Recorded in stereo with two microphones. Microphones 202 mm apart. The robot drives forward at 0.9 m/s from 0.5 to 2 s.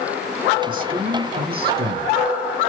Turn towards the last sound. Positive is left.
turn(degrees=-50)  # may be behind; listen again after turning